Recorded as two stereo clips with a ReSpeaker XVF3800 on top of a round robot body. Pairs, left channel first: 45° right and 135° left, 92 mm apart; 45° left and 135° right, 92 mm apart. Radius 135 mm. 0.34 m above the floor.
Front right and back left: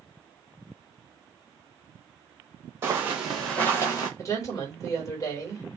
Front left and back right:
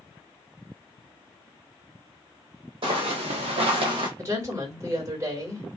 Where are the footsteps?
160° right, 1.1 m; by 4.1 s 95° right, 0.9 m.